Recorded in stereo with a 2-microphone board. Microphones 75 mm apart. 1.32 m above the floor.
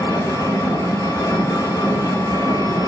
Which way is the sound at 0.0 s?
45° left (ahead or behind).